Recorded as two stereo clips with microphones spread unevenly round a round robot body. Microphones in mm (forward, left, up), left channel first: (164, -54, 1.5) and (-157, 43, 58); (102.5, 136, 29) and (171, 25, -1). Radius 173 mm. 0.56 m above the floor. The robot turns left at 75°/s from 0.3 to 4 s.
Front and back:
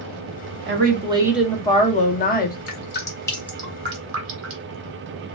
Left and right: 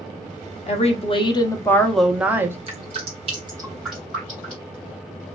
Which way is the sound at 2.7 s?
45° right.